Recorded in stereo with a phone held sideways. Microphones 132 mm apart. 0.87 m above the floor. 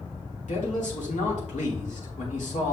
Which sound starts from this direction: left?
A man speaking, at 0.5 s.